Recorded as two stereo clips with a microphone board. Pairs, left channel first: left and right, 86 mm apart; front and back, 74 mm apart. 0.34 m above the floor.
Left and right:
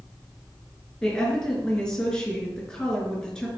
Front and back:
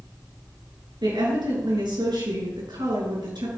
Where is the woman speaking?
170° left, 5 m.